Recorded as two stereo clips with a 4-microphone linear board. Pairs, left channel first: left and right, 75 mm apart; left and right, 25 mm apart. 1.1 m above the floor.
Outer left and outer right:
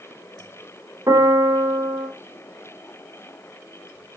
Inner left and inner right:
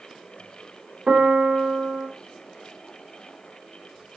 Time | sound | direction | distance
1.1 | a piano | 45° right (ahead or behind) | 3 m